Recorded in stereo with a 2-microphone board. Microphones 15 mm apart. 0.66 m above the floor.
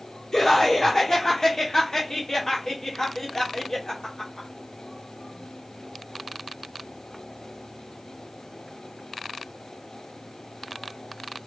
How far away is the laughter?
About 2 m.